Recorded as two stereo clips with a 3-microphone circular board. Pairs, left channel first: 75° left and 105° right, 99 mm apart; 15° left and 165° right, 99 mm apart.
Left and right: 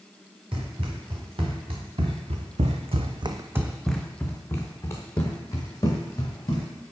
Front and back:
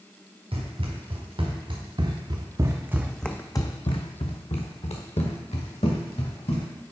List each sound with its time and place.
0.5 s running footsteps: 135° right, 3 m; by 6.7 s 20° left, 4 m